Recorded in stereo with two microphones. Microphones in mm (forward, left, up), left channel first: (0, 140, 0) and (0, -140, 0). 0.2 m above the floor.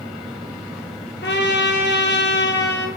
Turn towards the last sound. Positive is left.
turn(degrees=40)  # may be behind; listen again after turning